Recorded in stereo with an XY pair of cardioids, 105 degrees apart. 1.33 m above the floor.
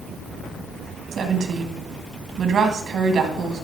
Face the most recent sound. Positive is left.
turn(degrees=-60)